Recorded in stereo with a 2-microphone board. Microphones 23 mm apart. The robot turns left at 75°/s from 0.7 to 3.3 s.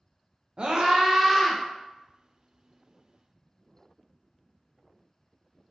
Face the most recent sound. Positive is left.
turn(degrees=35)